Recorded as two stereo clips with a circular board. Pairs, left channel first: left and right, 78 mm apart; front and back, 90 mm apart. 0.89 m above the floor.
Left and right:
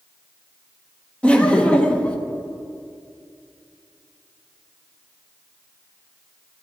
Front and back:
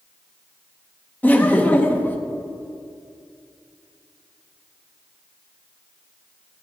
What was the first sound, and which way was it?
Laughter, 35° left.